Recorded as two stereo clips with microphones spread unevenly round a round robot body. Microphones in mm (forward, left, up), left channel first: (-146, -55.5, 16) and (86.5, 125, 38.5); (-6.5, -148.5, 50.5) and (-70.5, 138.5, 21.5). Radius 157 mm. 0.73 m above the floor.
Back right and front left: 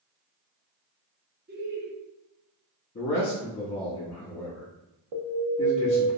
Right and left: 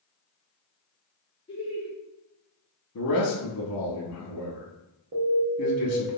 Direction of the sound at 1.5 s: 5° right.